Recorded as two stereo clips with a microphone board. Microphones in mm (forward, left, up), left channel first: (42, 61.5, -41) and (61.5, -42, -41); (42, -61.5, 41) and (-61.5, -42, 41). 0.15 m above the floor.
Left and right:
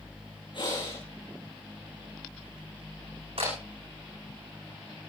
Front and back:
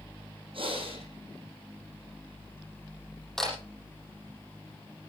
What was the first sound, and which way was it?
Breathing, 140° left.